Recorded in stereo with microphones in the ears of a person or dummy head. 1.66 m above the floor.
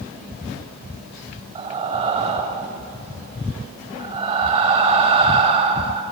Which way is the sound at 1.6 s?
35° right (ahead or behind).